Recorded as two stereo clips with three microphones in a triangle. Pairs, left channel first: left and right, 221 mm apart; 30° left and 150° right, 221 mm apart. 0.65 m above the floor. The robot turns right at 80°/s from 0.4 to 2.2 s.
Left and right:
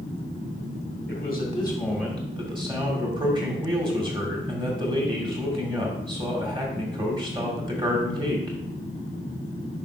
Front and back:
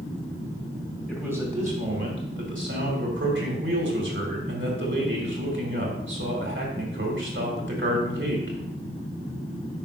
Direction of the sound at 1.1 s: 115° left.